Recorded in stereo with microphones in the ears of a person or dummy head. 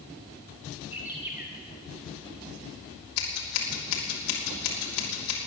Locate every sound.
0.9 s a bird: 10° right (ahead or behind), 1.4 m
3.2 s scissors: 75° left (ahead or behind), 3 m